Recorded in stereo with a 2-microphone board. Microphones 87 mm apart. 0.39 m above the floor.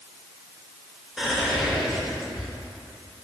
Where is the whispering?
5° right (ahead or behind), 1.0 m.